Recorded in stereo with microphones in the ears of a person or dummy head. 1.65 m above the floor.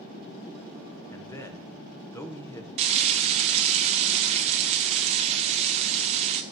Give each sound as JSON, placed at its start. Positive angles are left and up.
{"t": 1.1, "sound": "a man speaking", "side_deg": 15, "distance_m": 1.0}
{"t": 2.8, "sound": "frying", "side_deg": -30, "distance_m": 0.7}